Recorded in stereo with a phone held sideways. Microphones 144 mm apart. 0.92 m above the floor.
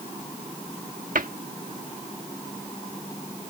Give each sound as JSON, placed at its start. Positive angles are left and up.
{"t": 1.1, "sound": "a cupboard door", "side_deg": -70}